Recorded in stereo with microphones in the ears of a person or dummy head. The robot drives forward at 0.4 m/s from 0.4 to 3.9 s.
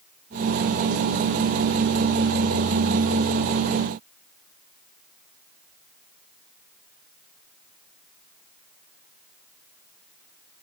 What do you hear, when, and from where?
Only background noise.